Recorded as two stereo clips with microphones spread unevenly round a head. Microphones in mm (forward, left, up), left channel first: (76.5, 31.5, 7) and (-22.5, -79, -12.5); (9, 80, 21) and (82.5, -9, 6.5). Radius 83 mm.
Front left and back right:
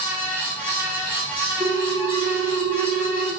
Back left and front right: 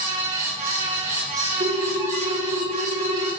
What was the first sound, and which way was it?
A fan, 55° right.